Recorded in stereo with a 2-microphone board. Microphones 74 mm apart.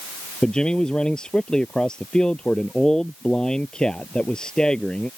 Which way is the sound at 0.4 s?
10° left (ahead or behind).